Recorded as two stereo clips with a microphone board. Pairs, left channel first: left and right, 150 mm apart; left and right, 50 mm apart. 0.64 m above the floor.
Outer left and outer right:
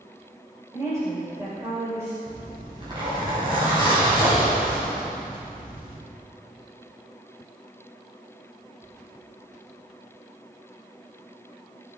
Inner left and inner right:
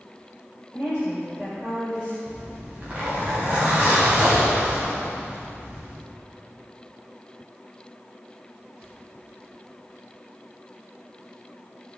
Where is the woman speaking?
20° right (ahead or behind), 3 m.